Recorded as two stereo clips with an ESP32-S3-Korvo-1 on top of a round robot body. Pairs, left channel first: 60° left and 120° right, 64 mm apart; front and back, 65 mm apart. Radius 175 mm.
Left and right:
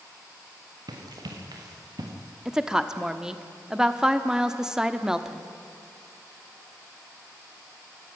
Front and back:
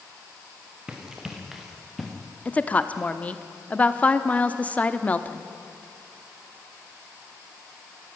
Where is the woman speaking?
45° right, 1.4 m.